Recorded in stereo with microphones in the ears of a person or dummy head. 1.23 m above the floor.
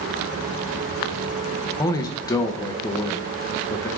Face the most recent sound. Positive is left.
turn(degrees=20)  # may be behind; listen again after turning